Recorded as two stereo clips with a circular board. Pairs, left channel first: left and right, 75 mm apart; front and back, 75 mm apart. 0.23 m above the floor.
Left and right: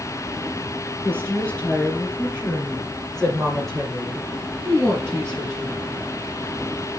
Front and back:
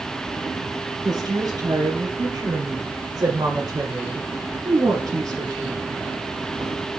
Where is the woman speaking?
160° left, 3.5 m; by 5.9 s 155° right, 3 m.